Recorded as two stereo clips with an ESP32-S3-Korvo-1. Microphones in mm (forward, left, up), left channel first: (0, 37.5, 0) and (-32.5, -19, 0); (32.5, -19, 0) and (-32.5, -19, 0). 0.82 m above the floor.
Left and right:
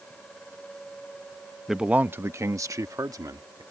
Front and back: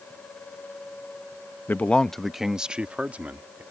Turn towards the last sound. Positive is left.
turn(degrees=-115)